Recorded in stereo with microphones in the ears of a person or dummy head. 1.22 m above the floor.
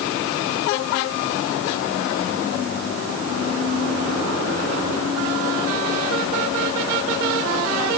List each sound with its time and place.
Only background noise.